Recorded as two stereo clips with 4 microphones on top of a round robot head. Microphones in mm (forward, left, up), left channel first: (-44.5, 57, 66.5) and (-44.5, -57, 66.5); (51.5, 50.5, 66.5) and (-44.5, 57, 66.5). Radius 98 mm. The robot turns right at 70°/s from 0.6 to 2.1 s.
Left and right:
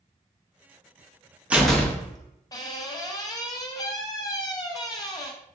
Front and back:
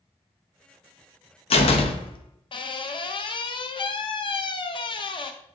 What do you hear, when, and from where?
1.5 s a door slam: 10° right, 0.5 m; by 5.3 s 30° left, 0.5 m